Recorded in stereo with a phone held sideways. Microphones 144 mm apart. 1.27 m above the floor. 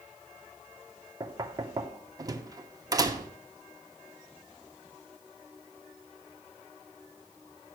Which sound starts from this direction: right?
Knocking, at 1.2 s.